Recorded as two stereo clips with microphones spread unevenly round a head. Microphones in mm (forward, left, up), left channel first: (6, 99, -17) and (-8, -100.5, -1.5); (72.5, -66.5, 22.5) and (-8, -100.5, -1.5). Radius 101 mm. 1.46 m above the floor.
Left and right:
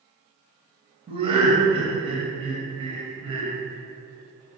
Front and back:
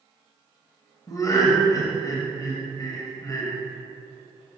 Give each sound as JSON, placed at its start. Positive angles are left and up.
{"t": 1.1, "sound": "laughter", "azimuth_deg": -30, "distance_m": 1.3}